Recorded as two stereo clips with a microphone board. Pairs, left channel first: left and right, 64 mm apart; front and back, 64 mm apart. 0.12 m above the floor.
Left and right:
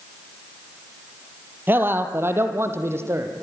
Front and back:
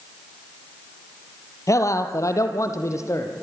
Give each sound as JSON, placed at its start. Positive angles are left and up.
{"t": 1.7, "sound": "a man speaking", "azimuth_deg": -35, "distance_m": 2.5}